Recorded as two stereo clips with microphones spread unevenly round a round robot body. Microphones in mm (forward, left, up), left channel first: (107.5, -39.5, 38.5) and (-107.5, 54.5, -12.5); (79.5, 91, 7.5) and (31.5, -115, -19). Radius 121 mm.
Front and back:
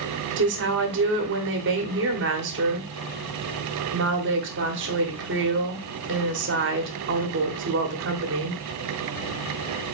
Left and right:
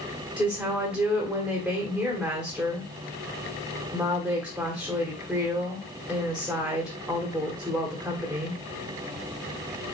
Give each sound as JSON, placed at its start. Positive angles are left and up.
{"t": 0.4, "sound": "a woman speaking", "azimuth_deg": 175, "distance_m": 1.1}